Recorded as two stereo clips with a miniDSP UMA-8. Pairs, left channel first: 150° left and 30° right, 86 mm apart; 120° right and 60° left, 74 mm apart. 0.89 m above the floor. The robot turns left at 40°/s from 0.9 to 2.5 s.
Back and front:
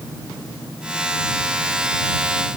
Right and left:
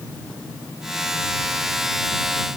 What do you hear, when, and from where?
Only background noise.